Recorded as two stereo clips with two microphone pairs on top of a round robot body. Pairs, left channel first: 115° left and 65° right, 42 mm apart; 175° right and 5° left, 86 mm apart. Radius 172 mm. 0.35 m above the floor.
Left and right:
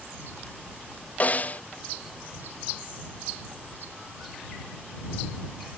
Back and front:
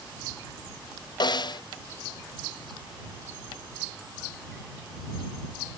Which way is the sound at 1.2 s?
165° left.